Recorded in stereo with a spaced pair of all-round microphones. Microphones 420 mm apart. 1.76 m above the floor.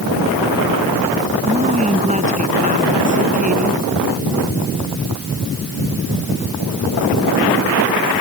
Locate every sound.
1.4 s a woman speaking: 15° right (ahead or behind); by 3.8 s 20° right (ahead or behind)